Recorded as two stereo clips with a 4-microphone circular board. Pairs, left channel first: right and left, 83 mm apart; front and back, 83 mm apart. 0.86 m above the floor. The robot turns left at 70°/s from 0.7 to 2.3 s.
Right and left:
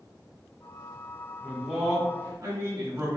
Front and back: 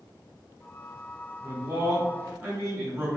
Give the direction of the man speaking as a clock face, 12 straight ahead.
5 o'clock.